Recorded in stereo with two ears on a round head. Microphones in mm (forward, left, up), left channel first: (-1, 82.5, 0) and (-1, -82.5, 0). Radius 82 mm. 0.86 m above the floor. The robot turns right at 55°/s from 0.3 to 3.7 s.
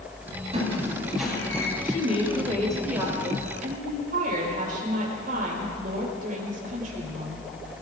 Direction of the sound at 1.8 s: 130° left.